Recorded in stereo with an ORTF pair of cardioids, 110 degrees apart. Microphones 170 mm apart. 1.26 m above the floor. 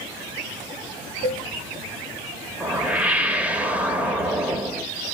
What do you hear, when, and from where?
1.2 s a cowbell: 50° right, 1.3 m
2.6 s a whoosh: 10° right, 0.9 m